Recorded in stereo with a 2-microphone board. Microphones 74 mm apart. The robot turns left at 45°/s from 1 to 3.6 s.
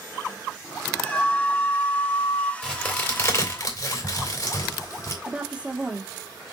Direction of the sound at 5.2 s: 10° right (ahead or behind).